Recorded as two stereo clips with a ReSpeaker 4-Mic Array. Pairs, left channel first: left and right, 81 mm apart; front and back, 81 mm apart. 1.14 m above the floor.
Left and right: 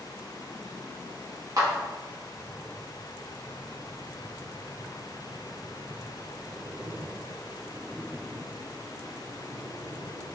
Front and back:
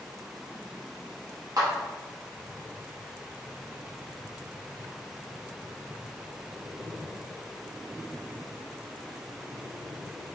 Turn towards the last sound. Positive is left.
turn(degrees=-135)